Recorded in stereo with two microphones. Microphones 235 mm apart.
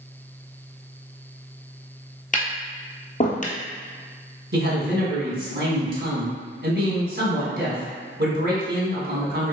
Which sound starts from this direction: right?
A man speaking, at 4.5 s.